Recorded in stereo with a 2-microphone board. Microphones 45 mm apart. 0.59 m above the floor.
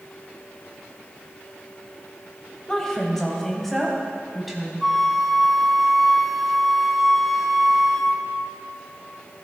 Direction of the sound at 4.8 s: 5° right (ahead or behind).